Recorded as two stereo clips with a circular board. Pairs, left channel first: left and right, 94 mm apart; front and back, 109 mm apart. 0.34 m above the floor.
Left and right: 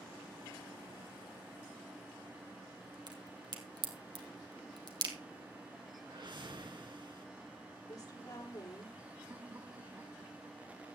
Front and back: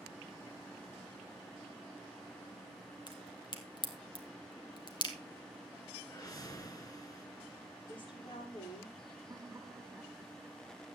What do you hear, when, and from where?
3.1 s a crack: 45° right, 2.5 m
6.0 s a whoosh: 55° right, 2.5 m
7.9 s a woman speaking: 40° left, 9 m
9.3 s laughter: 120° right, 1.3 m